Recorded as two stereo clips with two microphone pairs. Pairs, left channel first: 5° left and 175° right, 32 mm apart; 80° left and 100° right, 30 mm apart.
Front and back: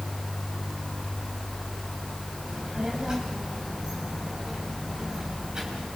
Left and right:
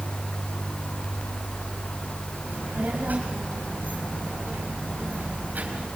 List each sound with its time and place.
2.5 s a child speaking: 105° right, 3.5 m